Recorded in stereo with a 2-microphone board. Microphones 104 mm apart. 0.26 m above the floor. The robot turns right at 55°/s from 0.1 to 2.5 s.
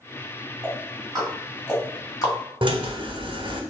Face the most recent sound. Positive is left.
turn(degrees=-50)  # may be behind; listen again after turning